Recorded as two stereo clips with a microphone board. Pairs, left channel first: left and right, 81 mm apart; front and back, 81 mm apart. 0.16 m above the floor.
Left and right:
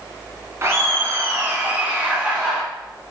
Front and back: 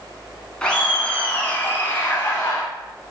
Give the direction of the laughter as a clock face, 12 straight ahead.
2 o'clock.